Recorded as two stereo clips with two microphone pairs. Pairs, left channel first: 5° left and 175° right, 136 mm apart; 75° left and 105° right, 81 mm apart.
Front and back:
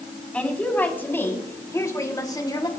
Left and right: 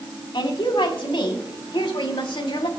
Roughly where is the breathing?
I don't hear breathing.